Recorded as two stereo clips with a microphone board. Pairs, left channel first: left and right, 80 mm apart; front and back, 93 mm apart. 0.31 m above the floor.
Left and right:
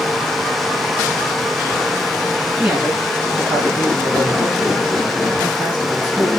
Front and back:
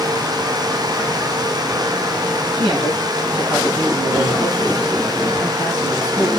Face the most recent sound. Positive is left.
turn(degrees=-155)